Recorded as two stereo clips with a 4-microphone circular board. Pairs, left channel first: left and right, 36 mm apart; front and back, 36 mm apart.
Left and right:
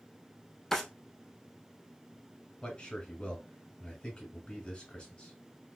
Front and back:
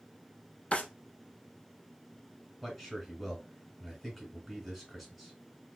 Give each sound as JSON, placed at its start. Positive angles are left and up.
{"t": 0.7, "sound": "a drawer", "azimuth_deg": 15, "distance_m": 0.8}
{"t": 2.6, "sound": "a man speaking", "azimuth_deg": 90, "distance_m": 1.5}